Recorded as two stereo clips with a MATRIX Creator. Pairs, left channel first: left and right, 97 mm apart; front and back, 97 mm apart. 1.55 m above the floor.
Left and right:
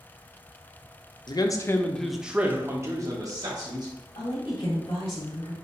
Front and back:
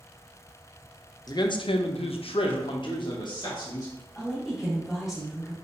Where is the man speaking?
50° left, 0.6 m; by 3.9 s 45° right, 1.2 m.